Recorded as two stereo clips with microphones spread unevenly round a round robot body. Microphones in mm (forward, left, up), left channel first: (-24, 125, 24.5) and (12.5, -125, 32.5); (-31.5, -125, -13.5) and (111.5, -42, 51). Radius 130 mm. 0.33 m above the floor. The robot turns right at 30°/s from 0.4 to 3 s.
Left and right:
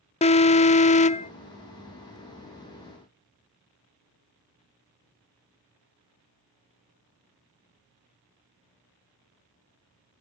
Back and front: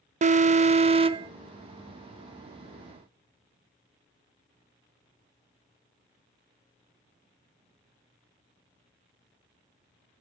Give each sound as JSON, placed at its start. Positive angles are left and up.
{"t": 0.2, "sound": "an alarm", "azimuth_deg": 80, "distance_m": 0.6}